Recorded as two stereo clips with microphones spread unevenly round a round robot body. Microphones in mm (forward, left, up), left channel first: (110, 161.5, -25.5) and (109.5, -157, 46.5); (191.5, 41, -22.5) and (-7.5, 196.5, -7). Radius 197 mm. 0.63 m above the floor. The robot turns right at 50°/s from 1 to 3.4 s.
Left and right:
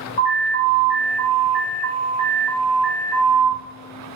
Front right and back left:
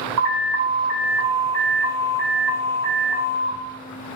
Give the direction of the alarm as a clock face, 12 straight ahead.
7 o'clock.